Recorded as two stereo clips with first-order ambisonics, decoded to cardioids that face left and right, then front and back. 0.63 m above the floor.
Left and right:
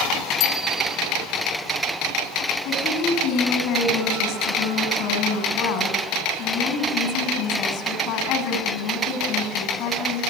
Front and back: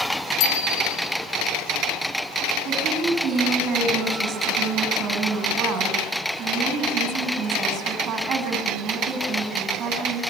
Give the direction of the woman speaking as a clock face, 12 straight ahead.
8 o'clock.